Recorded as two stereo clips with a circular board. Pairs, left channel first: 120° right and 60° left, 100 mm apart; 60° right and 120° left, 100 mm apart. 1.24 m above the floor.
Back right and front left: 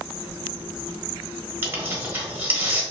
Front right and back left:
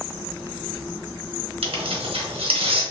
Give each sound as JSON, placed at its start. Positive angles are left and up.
{"t": 1.6, "sound": "tearing paper", "azimuth_deg": 125, "distance_m": 0.9}